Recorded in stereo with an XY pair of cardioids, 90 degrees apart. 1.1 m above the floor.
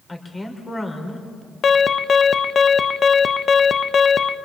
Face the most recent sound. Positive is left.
turn(degrees=55)